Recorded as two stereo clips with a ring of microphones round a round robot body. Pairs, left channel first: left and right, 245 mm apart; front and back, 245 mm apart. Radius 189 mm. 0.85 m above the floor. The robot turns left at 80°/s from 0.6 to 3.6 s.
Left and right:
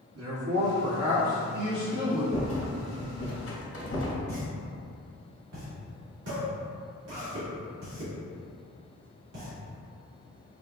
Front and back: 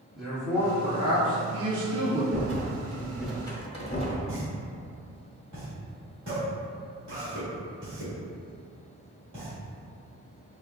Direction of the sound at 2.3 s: 165° left.